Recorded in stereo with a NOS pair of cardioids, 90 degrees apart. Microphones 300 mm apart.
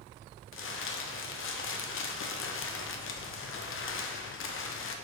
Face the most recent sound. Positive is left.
turn(degrees=45)